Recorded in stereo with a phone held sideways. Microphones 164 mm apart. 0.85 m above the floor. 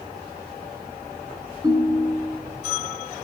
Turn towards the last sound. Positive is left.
turn(degrees=-25)  # may be behind; listen again after turning